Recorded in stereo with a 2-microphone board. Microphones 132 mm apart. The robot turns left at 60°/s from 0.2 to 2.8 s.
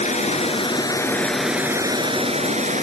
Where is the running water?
70° left, 1.5 m; by 2.8 s 85° right, 1.5 m.